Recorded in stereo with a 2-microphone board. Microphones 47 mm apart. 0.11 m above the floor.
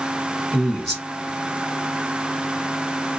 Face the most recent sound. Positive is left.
turn(degrees=5)  # may be behind; listen again after turning